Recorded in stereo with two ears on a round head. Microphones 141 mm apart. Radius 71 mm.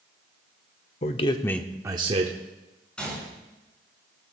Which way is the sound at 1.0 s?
45° left (ahead or behind).